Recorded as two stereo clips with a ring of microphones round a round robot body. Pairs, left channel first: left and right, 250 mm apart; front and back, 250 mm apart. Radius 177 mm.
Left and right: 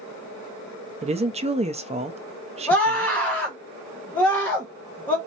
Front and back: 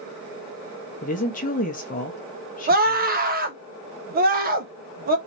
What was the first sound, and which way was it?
A woman speaking, 40° right.